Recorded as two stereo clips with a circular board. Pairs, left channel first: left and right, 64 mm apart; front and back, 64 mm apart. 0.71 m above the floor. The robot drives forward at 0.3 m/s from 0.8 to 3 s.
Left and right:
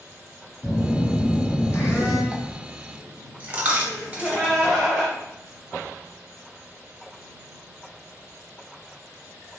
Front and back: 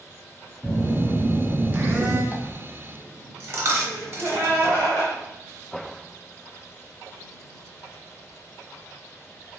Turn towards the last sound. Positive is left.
turn(degrees=170)